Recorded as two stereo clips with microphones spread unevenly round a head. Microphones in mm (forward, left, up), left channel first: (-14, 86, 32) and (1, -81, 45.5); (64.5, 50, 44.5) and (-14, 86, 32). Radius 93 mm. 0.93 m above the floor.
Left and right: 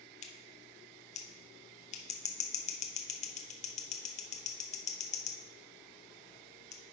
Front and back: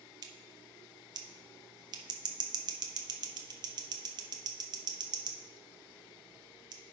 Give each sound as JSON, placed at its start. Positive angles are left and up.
{"t": 0.2, "sound": "scissors", "azimuth_deg": 135, "distance_m": 0.9}